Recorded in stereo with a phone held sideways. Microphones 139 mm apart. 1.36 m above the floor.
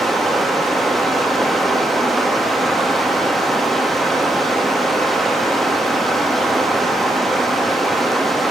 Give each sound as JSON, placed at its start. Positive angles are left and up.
{"t": 0.0, "sound": "running water", "side_deg": 0, "distance_m": 1.0}